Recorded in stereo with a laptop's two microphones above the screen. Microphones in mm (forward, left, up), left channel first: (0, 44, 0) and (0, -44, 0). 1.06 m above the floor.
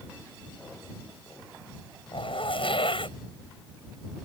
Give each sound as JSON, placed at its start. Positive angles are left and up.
{"t": 2.1, "sound": "a zipper", "side_deg": 80}